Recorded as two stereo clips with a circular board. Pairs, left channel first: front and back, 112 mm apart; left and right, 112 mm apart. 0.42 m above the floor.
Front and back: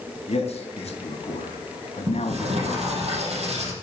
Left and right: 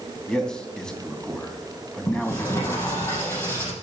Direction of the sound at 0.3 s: 5° left.